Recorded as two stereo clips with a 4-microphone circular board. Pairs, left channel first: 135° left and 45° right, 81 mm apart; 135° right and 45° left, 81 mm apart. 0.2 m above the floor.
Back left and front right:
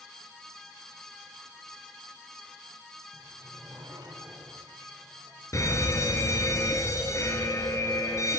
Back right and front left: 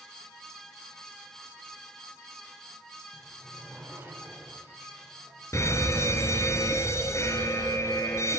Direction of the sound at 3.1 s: 20° right.